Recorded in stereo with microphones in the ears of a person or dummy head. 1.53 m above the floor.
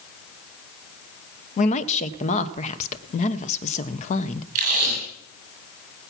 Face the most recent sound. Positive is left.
turn(degrees=-45)  # may be behind; listen again after turning